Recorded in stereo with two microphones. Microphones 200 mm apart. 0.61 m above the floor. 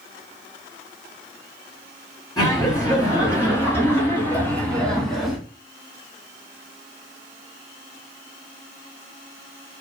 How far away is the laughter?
About 3 m.